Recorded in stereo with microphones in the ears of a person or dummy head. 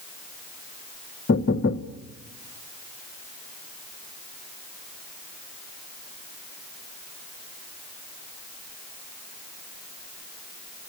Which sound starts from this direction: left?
Knocking, at 1.3 s.